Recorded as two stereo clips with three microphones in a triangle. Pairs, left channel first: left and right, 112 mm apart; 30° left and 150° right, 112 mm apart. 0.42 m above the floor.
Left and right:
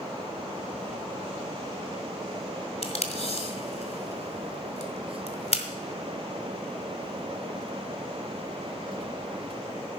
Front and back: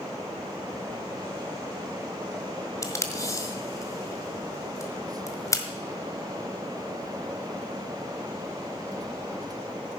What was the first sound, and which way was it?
Tape being pulled, 90° left.